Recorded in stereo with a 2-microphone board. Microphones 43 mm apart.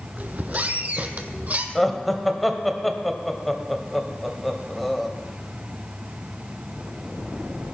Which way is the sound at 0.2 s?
40° right (ahead or behind).